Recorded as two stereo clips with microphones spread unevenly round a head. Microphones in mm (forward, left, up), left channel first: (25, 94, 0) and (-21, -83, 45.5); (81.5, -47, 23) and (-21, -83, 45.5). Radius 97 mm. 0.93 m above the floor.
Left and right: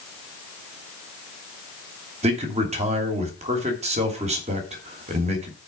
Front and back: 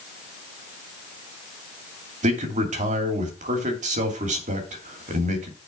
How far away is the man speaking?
About 2.5 m.